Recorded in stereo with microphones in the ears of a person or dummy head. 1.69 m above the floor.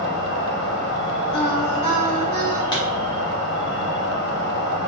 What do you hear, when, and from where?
0.0 s an insect: 65° left (ahead or behind), 0.8 m
1.3 s singing: 25° left (ahead or behind), 1.7 m
2.7 s a pop: 25° left (ahead or behind), 0.7 m